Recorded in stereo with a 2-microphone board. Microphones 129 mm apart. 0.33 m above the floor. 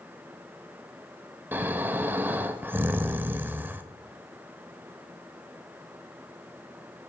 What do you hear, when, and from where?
1.5 s snoring: 15° right (ahead or behind), 0.5 m